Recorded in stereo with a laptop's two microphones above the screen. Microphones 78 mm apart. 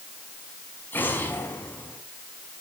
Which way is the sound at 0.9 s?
25° left (ahead or behind).